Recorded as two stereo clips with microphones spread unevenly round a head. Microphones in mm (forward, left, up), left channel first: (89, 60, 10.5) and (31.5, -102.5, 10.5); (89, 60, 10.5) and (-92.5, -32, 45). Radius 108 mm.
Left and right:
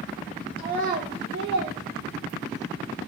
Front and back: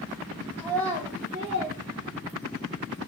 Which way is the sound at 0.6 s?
50° right.